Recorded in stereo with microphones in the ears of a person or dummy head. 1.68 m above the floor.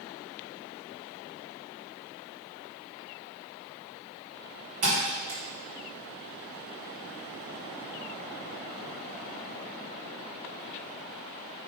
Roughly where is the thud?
Right.